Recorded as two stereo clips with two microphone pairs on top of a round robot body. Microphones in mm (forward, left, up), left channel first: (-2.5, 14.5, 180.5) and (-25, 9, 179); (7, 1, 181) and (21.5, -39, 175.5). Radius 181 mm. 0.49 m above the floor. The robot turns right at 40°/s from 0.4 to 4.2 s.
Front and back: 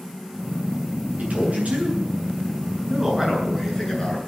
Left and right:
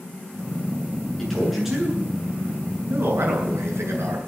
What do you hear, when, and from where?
1.2 s a man speaking: 170° right, 8 m; by 4.3 s 50° right, 8 m